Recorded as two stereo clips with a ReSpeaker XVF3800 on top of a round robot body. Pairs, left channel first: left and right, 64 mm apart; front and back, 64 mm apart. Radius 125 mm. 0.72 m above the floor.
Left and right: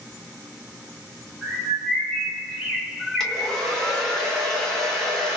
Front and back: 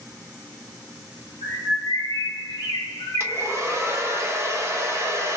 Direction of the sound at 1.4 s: Straight ahead.